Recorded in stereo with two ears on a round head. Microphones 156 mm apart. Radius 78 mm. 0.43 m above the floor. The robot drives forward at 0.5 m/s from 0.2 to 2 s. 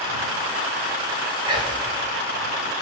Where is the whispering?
30° right (ahead or behind), 1.6 m.